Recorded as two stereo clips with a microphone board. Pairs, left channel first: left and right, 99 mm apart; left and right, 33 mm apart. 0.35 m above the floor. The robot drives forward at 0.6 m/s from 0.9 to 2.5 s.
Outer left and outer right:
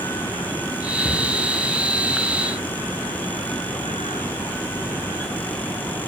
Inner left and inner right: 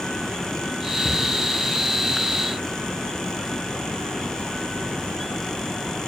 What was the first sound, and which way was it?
A cupboard door, 75° left (ahead or behind).